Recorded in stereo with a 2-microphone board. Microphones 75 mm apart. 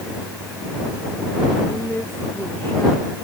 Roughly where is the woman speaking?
Left.